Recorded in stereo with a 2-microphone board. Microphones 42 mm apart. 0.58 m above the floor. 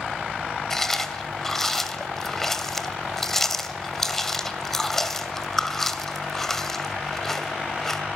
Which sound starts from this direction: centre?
Chewing, at 0.7 s.